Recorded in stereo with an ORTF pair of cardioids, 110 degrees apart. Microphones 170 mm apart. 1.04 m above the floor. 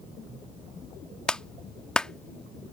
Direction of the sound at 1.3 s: 5° left.